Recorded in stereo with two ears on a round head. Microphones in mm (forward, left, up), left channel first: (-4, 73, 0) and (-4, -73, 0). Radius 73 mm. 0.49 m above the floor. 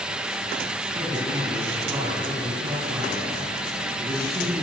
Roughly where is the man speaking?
Right.